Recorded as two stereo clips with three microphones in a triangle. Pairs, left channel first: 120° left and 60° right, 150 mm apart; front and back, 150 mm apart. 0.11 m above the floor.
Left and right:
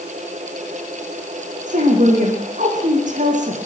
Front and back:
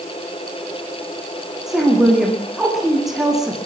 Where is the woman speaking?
90° right, 6.5 m.